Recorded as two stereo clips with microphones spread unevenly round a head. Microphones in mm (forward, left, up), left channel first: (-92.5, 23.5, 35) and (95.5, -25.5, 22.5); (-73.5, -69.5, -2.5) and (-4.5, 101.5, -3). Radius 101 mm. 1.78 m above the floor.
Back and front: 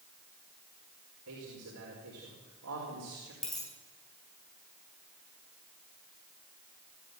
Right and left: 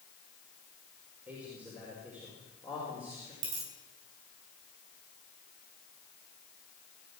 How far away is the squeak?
I don't hear a squeak.